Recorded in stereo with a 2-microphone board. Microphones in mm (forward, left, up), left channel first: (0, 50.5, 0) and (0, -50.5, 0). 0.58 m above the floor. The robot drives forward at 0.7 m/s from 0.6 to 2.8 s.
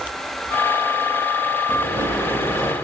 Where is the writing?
35° right (ahead or behind), 8 m; by 2.8 s 40° right (ahead or behind), 7.5 m.